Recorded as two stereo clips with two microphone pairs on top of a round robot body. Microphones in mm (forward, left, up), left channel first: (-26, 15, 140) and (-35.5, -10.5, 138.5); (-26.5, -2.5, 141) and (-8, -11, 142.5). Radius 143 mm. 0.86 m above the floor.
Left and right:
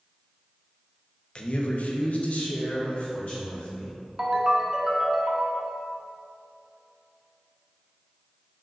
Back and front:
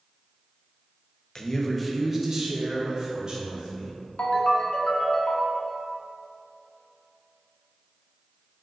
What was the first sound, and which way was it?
A man speaking, 115° left.